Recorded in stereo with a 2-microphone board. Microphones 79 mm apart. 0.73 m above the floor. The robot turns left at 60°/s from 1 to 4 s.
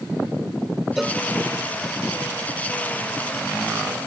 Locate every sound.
1.0 s a cowbell: 5° right (ahead or behind); by 1.2 s 10° left (ahead or behind)